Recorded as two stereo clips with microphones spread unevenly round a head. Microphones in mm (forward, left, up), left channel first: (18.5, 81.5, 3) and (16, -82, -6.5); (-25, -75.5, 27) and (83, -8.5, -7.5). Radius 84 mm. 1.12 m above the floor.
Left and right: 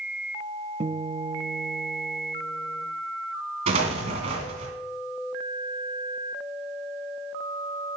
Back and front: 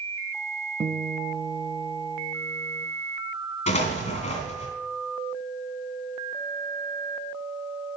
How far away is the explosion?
About 2 m.